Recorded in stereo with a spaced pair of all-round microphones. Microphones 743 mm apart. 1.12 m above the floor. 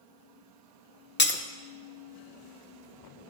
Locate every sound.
1.2 s breaking glass: 15° left (ahead or behind), 0.5 m